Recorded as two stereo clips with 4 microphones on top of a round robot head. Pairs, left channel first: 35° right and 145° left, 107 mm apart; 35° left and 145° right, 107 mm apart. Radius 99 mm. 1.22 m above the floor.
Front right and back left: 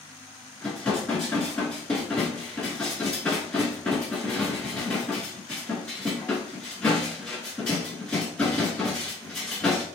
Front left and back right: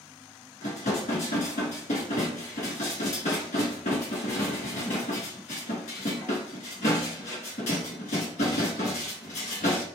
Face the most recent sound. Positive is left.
turn(degrees=40)